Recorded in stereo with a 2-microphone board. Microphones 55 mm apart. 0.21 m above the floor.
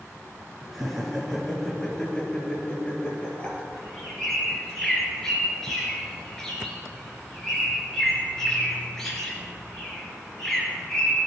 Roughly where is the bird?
Centre.